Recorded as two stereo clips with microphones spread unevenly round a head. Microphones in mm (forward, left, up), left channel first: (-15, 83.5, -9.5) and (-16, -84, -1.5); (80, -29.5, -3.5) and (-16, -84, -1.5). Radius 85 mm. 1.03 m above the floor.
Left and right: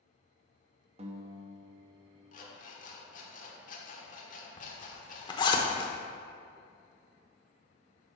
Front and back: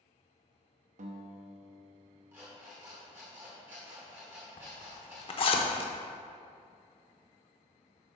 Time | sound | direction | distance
1.0 | a guitar | 145° right | 0.8 m
2.3 | an alarm clock | 135° left | 1.3 m
4.6 | a zipper | 30° left | 0.8 m